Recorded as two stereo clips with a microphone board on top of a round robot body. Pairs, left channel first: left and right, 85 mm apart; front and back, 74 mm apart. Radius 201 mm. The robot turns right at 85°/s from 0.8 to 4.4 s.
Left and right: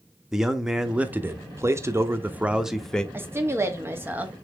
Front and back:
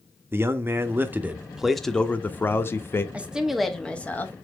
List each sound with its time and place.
0.3 s a man speaking: 170° right, 0.8 m; by 3.0 s 20° left, 0.8 m
3.1 s a woman speaking: 125° right, 1.0 m; by 4.3 s 25° right, 1.0 m